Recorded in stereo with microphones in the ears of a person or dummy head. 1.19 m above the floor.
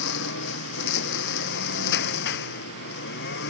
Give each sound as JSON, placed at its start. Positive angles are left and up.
{"t": 0.0, "sound": "a lawn mower", "side_deg": 60}